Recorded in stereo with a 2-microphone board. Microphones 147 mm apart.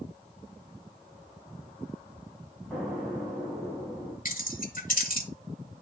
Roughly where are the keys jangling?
Left.